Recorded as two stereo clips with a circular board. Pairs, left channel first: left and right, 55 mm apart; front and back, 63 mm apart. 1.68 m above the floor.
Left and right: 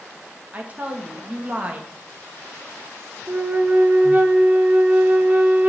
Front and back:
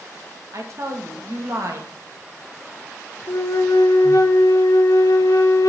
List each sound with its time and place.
0.5 s a woman speaking: 150° right, 1.7 m
3.3 s a flute: 25° right, 1.0 m